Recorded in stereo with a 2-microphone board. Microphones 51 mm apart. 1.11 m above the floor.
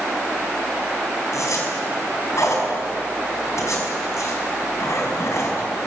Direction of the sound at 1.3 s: 65° left (ahead or behind).